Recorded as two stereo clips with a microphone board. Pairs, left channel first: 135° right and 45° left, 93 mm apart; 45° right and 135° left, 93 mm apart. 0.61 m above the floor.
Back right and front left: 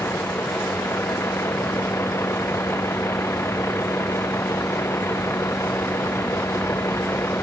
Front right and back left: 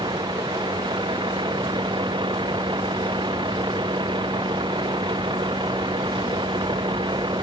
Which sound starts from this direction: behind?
A vehicle, at 0.0 s.